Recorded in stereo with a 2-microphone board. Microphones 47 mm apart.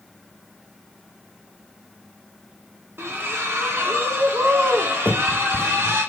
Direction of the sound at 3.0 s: 60° right (ahead or behind).